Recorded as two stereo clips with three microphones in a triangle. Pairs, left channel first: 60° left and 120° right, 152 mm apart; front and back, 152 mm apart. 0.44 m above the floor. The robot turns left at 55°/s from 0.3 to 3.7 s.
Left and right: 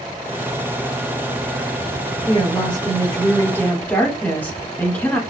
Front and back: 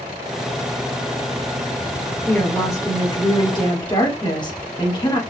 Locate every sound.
2.3 s a woman speaking: 70° left, 1.2 m; by 5.2 s 5° right, 1.2 m